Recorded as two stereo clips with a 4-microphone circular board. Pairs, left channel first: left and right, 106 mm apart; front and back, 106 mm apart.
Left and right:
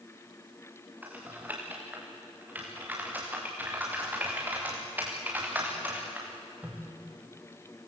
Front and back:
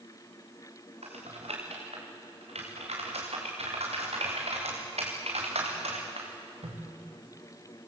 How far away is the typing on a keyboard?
About 6.5 m.